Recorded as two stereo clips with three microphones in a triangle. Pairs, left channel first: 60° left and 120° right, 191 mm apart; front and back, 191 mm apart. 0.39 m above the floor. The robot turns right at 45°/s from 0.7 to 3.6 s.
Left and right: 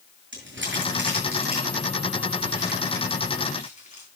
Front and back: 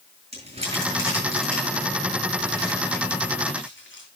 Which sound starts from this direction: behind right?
Crumpling, at 0.3 s.